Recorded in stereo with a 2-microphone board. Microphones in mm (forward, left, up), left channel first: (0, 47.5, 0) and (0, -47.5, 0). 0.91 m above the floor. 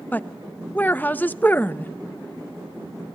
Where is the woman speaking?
20° left (ahead or behind), 0.5 m.